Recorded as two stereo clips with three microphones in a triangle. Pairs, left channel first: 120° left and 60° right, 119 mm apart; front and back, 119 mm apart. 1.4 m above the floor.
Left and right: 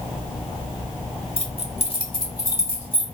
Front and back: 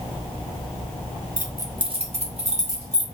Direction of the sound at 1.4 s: 100° left.